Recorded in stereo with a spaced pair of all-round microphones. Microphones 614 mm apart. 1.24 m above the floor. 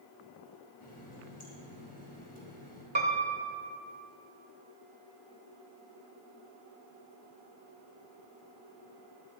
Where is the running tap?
15° left (ahead or behind), 5 m.